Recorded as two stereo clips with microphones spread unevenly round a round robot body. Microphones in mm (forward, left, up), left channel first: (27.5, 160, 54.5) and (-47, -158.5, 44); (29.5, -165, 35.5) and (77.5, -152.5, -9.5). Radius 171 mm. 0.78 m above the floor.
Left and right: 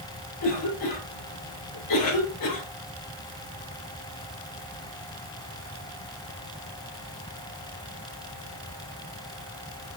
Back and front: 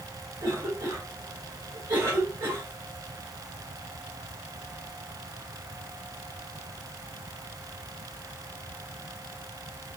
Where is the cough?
45° left, 4 m.